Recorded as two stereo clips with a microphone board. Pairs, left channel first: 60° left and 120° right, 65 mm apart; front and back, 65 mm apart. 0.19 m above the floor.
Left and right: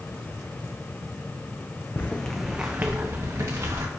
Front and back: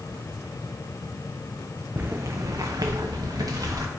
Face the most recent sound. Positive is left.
turn(degrees=-155)